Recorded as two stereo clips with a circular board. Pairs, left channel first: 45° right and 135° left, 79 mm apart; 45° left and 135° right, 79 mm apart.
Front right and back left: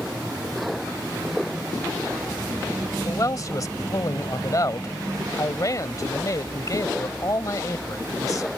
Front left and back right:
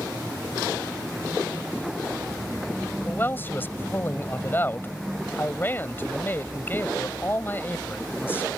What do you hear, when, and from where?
3.0 s a man speaking: 15° right